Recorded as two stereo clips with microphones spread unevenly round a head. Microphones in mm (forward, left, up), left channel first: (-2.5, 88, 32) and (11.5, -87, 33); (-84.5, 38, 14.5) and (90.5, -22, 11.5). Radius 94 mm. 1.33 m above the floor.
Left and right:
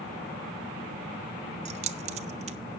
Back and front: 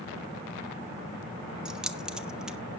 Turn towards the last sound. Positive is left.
turn(degrees=-105)